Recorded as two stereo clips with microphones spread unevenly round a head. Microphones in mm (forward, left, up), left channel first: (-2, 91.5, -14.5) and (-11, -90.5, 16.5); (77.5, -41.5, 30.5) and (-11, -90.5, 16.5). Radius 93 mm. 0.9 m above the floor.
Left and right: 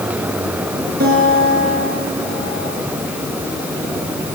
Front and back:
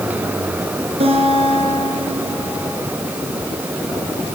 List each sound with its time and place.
1.0 s a guitar: 130° right, 6 m